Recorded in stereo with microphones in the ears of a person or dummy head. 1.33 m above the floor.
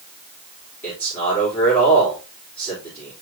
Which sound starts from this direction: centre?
A man speaking, at 0.8 s.